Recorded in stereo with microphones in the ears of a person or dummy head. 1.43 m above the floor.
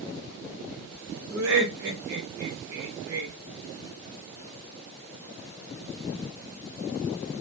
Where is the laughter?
60° right (ahead or behind), 0.8 m.